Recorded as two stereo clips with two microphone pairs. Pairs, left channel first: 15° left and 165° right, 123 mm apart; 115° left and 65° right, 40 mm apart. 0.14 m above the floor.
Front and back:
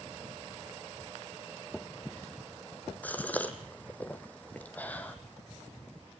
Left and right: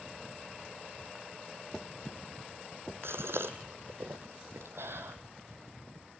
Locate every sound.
3.0 s a gasp: 60° right, 1.5 m